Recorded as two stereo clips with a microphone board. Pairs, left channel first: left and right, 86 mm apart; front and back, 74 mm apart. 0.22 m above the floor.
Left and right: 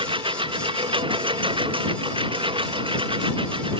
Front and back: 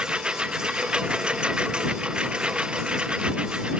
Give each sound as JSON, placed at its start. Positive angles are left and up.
{"t": 0.0, "sound": "a lawn mower", "azimuth_deg": -100}